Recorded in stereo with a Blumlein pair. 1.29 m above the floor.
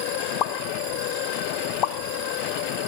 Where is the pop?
35° left, 0.5 m.